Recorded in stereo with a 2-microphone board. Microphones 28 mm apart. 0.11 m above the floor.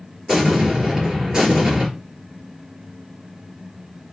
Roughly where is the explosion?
Right.